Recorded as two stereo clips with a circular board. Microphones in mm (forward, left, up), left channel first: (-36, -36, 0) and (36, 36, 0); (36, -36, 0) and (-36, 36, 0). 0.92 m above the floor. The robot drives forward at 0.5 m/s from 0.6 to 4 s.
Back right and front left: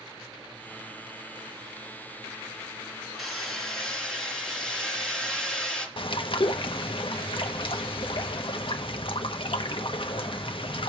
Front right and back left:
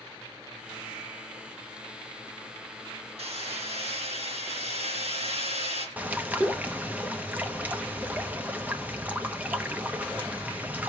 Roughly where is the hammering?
Behind left.